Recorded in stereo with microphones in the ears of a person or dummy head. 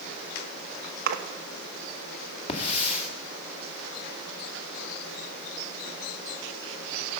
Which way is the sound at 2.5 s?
35° left (ahead or behind).